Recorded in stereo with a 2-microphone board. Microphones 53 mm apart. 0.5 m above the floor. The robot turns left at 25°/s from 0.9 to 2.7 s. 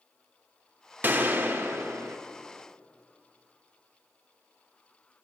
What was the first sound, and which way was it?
A gunshot, 35° right (ahead or behind).